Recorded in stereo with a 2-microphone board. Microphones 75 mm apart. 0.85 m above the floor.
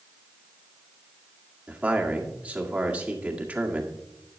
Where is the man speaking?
20° right (ahead or behind), 1.7 m.